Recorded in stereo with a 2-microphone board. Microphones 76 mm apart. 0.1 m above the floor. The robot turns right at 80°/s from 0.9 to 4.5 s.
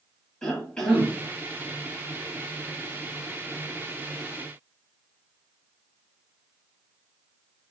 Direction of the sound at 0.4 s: 10° left (ahead or behind).